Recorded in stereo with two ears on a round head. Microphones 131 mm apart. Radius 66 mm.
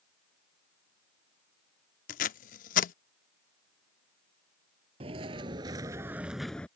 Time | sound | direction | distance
2.1 | tape being pulled | 60° left (ahead or behind) | ?
5.0 | footsteps | 40° right (ahead or behind) | ?